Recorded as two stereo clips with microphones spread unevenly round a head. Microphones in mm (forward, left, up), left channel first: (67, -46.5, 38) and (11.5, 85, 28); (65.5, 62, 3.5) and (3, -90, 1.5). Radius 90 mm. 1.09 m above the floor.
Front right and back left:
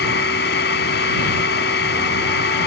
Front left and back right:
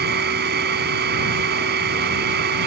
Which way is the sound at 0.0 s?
90° right.